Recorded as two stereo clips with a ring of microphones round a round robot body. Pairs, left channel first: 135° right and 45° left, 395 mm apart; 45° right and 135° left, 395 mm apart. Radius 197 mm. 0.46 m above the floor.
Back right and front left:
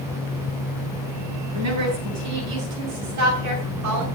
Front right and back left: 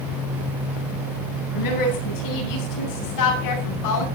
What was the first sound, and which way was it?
A woman speaking, 5° right.